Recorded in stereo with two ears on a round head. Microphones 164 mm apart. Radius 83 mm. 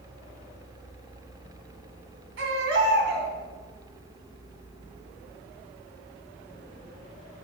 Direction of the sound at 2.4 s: 80° right.